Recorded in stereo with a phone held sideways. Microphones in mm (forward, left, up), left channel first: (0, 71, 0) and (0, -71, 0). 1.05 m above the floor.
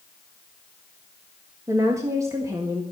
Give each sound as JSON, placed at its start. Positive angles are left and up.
{"t": 1.7, "sound": "a woman speaking", "side_deg": -20, "distance_m": 1.7}